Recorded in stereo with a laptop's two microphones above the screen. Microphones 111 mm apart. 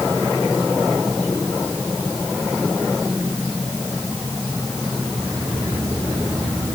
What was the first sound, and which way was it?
Only background noise.